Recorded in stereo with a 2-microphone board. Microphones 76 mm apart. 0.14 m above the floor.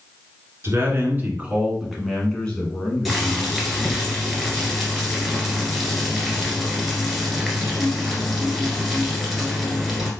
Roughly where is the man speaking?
Right.